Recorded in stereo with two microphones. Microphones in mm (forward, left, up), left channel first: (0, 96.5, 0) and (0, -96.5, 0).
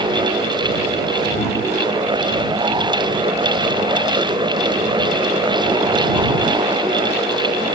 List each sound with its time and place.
Only background noise.